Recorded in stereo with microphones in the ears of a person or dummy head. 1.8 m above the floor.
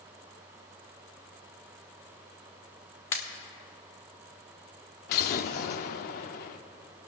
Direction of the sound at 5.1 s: 50° left (ahead or behind).